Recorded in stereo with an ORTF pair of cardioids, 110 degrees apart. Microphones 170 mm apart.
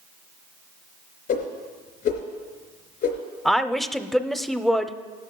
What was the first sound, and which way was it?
A whoosh, 70° left.